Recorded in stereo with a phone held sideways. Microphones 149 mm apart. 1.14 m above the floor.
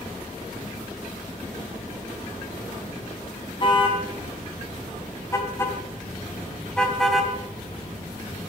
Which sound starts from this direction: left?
A car horn, at 3.6 s.